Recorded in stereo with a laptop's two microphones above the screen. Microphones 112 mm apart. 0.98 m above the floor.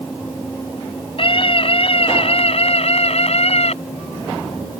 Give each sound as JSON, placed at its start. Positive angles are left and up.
{"t": 1.2, "sound": "a scream", "side_deg": 55}